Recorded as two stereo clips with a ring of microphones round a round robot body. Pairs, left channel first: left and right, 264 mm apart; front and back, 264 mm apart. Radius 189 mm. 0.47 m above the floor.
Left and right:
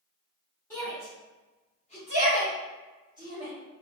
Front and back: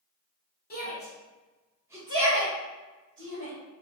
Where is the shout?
15° left, 1.2 m; by 3.5 s 150° left, 1.9 m.